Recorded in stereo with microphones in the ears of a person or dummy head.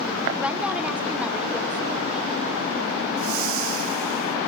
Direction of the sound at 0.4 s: Centre (ahead or behind).